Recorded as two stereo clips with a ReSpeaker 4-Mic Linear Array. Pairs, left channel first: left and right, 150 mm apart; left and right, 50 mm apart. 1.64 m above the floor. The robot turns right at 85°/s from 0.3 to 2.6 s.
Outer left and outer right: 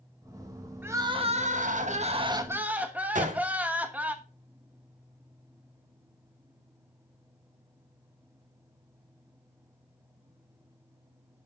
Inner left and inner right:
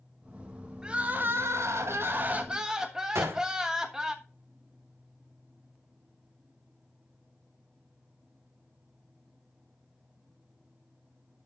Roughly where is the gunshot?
Right.